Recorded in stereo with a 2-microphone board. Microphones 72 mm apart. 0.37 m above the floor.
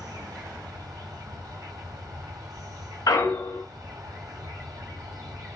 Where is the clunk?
60° left (ahead or behind), 0.6 m.